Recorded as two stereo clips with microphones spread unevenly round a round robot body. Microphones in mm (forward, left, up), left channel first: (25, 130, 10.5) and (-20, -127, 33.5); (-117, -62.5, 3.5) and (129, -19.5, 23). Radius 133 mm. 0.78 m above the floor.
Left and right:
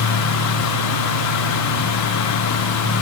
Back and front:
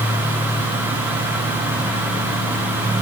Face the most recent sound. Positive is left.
No sound to turn to.